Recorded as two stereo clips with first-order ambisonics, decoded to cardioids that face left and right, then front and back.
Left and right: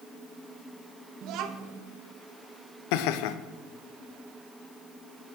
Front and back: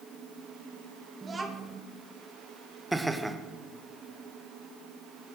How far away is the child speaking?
About 0.7 m.